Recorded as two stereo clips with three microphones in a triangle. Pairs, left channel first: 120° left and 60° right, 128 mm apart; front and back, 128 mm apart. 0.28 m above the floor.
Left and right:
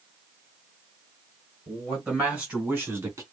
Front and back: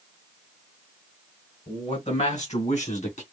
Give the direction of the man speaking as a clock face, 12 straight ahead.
11 o'clock.